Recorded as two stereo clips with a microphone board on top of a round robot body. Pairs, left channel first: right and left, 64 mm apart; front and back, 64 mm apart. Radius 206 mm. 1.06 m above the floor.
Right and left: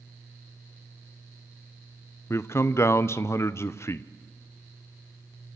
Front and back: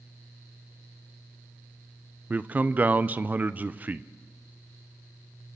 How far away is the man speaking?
About 1.1 m.